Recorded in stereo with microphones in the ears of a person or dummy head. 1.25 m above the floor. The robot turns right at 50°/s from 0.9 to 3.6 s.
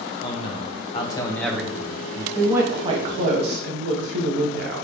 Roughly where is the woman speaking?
Behind.